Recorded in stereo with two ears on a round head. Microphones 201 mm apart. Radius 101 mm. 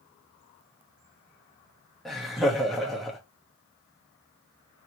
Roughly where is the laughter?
Centre.